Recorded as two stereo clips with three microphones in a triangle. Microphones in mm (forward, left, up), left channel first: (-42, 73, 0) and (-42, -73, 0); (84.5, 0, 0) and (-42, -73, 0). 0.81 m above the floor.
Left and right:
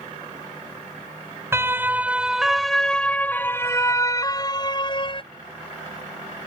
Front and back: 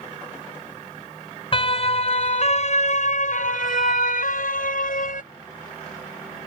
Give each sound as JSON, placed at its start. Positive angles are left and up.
{"t": 1.5, "sound": "a siren", "azimuth_deg": -20}